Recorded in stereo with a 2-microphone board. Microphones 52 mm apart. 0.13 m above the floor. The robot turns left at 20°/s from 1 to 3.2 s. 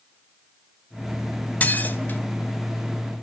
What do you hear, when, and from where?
1.6 s dishes clattering: 30° left (ahead or behind), 1.3 m; by 2.2 s 35° left (ahead or behind), 1.3 m